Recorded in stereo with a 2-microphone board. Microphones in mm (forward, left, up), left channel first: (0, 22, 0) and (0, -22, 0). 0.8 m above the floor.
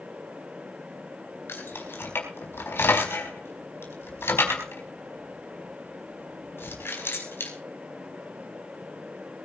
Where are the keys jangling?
60° left (ahead or behind), 4.5 m.